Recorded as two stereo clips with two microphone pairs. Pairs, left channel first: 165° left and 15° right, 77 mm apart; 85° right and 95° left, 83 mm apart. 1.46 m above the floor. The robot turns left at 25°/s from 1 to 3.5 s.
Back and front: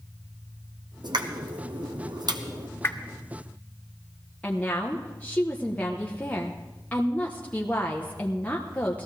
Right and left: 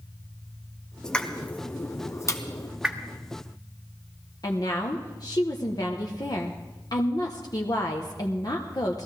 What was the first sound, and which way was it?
A pop, straight ahead.